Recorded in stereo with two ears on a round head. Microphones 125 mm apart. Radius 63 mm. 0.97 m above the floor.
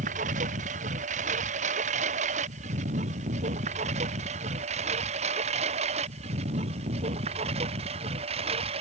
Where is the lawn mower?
60° right (ahead or behind); by 8.8 s 45° right (ahead or behind).